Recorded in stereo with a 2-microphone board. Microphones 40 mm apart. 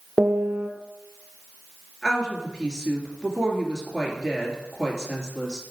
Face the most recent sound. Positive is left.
turn(degrees=15)  # may be behind; listen again after turning